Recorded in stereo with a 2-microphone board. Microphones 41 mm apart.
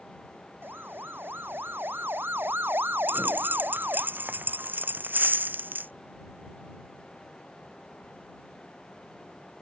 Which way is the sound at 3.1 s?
60° right (ahead or behind).